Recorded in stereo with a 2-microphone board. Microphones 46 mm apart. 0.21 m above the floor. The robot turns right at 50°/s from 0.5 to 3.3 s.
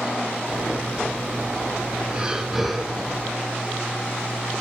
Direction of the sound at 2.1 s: 30° right.